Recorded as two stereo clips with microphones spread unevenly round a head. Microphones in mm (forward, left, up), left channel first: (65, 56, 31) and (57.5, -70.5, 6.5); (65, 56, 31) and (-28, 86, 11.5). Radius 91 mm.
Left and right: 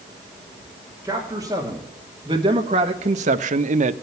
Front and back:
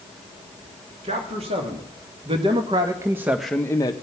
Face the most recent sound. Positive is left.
turn(degrees=-80)